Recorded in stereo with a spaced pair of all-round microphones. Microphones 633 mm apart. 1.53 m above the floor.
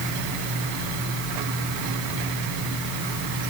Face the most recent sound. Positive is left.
No sound to turn to.